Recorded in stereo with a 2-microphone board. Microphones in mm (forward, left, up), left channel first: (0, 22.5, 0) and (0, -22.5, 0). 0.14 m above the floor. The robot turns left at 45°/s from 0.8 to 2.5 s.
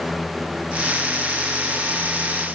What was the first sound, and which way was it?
Only background noise.